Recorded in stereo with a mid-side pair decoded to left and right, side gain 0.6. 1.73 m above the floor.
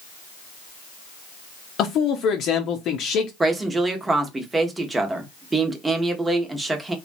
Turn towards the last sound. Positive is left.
turn(degrees=-20)